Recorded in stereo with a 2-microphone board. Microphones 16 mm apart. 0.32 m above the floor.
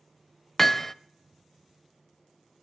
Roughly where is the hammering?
Centre.